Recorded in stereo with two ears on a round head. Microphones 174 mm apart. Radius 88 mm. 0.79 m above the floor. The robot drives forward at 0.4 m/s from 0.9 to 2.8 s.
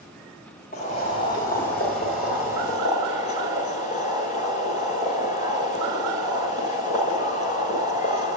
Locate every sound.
0.7 s boiling: 45° left (ahead or behind), 6 m; by 8.4 s 40° left (ahead or behind), 6.5 m